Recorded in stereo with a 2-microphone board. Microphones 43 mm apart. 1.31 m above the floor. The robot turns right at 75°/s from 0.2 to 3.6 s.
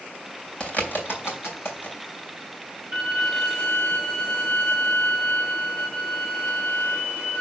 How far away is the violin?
About 2 m.